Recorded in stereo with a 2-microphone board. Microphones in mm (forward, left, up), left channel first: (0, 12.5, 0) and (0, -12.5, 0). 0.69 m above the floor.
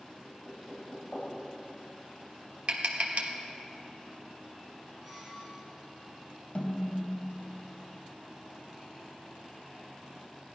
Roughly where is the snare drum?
Left.